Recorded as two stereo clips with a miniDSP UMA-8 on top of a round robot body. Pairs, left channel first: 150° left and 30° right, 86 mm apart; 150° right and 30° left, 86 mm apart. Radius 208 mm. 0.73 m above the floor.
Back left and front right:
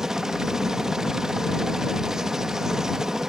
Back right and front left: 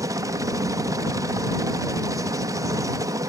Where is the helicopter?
50° left.